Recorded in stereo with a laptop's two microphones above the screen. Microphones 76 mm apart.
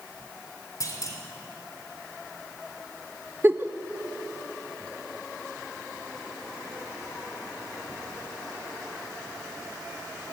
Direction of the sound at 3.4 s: 30° right (ahead or behind).